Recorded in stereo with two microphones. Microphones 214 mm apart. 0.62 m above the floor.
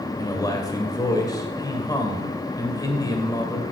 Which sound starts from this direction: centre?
A man speaking, at 0.2 s.